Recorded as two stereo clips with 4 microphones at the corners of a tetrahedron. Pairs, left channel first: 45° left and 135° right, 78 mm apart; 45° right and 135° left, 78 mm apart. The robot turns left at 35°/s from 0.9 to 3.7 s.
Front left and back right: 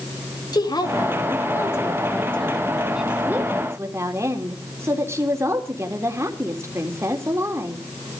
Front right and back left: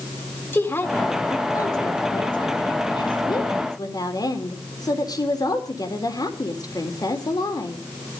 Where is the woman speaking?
20° left, 3.5 m; by 7.8 s 80° right, 3.5 m.